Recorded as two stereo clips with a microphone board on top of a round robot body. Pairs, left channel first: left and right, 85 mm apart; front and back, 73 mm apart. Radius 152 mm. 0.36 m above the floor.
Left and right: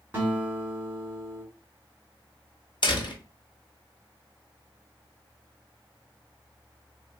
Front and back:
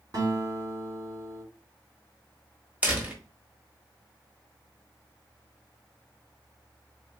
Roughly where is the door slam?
Left.